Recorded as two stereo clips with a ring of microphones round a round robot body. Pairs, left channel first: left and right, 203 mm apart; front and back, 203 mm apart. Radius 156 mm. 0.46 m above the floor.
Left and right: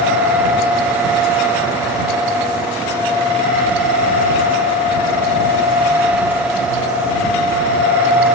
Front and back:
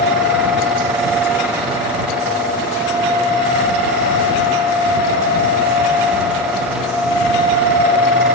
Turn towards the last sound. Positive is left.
No sound to turn to.